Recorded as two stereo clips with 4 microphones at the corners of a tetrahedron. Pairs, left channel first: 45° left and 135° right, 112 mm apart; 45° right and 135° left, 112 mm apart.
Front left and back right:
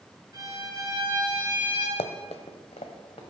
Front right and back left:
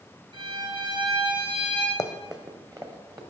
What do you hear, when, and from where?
0.3 s a violin: 175° left, 1.9 m
2.0 s running footsteps: 20° left, 0.5 m; by 3.2 s 80° left, 1.6 m